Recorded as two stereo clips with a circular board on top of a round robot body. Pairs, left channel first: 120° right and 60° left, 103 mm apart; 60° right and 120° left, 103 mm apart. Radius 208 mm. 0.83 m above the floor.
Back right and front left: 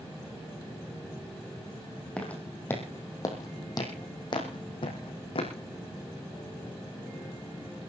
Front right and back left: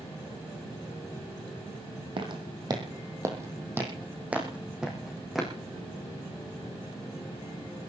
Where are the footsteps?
160° left, 2.5 m; by 5.5 s 155° right, 3.5 m.